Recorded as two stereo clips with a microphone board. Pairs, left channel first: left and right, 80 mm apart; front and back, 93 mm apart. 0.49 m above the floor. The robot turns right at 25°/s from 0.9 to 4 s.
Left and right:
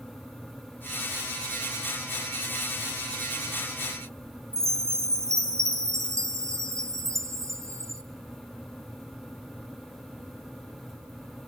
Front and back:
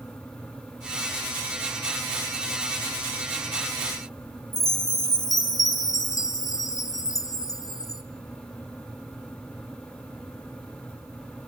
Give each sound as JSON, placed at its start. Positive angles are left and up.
{"t": 4.5, "sound": "a chime", "azimuth_deg": -45, "distance_m": 2.5}